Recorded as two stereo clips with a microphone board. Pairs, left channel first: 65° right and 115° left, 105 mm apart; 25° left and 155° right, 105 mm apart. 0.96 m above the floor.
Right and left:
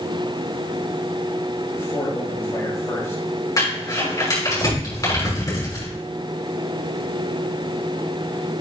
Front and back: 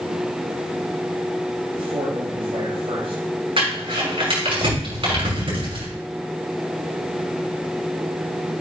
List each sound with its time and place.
1.8 s a man speaking: 135° right, 6.5 m
3.6 s crumpling: 125° right, 6 m